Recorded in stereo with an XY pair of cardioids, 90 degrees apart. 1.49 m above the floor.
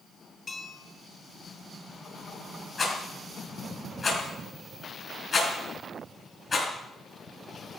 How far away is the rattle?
About 5.5 m.